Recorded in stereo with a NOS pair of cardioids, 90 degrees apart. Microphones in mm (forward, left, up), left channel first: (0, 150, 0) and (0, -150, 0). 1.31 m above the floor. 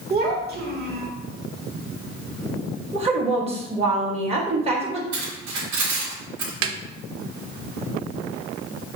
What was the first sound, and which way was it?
A child speaking, 35° right.